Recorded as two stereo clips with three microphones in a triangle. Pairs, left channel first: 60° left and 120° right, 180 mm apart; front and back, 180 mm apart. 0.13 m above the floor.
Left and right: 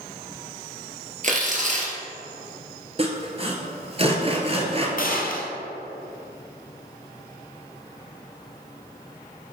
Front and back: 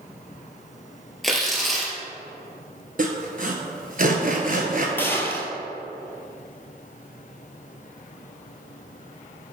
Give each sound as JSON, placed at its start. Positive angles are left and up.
{"t": 1.2, "sound": "tearing paper", "azimuth_deg": -90, "distance_m": 1.7}
{"t": 3.0, "sound": "sawing", "azimuth_deg": -165, "distance_m": 1.1}
{"t": 5.0, "sound": "a gunshot", "azimuth_deg": 75, "distance_m": 1.2}